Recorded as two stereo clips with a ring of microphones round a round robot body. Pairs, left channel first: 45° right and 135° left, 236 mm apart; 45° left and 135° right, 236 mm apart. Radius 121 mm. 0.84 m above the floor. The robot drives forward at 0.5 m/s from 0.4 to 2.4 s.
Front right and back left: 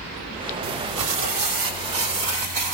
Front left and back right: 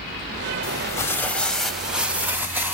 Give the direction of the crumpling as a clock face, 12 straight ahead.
8 o'clock.